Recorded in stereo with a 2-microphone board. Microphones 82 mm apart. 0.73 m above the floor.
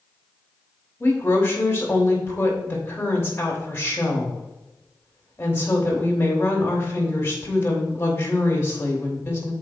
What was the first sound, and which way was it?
A woman speaking, 30° left (ahead or behind).